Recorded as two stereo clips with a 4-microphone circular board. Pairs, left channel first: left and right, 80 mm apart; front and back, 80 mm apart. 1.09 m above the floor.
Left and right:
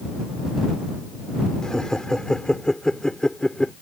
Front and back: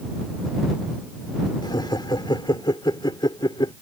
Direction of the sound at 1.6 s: 10° left.